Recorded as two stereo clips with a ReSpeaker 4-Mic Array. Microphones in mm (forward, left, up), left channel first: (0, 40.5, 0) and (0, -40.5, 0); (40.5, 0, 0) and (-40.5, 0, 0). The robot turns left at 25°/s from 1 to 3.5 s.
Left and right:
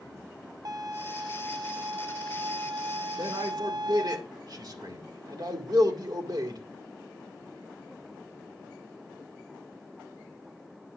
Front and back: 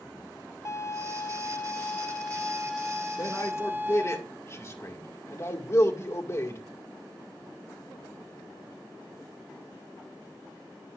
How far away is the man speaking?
About 1.9 m.